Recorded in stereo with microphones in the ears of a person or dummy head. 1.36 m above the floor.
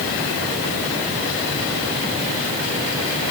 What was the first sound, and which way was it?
Only background noise.